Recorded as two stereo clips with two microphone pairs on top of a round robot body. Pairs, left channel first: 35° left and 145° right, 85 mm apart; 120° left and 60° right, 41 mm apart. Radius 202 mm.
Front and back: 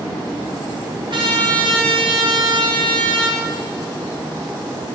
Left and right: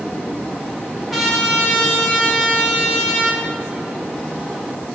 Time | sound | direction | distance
1.1 | a trumpet | 150° right | 1.9 m